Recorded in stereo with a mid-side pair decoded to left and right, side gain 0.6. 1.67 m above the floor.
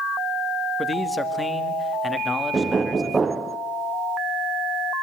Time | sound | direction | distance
0.8 | a man speaking | 15° left | 2.5 m
2.5 | knocking | 20° right | 0.8 m